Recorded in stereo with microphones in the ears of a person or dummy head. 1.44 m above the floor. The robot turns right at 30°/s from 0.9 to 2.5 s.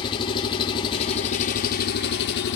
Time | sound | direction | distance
0.0 | an engine running | 30° left | 1.4 m